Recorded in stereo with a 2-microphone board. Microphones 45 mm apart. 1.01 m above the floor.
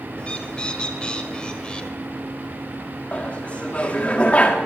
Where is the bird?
20° left (ahead or behind), 1.4 m.